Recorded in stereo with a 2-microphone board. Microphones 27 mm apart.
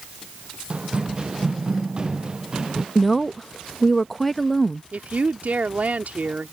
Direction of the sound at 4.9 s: 70° right (ahead or behind).